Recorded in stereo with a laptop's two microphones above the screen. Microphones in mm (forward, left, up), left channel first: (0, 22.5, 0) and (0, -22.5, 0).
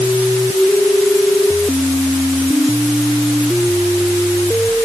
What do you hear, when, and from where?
Only background noise.